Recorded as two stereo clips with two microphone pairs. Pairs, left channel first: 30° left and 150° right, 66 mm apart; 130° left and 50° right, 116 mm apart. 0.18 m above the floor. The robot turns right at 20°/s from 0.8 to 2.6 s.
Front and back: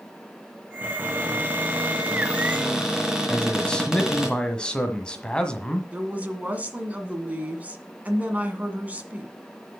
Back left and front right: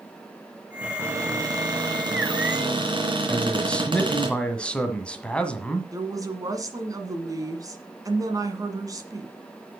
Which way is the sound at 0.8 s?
110° right.